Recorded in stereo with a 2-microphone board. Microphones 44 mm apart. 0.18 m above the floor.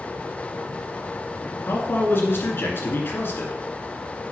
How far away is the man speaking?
About 2 m.